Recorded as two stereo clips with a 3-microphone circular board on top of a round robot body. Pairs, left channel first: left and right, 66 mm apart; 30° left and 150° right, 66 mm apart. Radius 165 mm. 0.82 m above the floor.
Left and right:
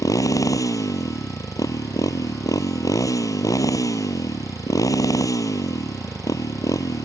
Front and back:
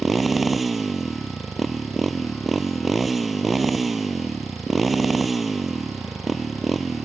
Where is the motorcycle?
120° left.